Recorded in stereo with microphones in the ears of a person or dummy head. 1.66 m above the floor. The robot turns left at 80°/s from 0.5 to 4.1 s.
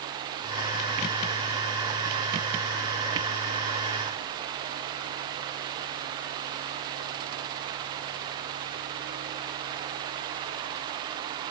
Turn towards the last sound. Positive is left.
No sound to turn to.